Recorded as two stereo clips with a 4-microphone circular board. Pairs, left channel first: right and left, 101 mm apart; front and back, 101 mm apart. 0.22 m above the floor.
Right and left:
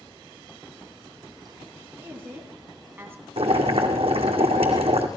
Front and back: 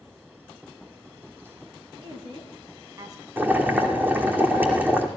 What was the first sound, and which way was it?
A woman speaking, 155° left.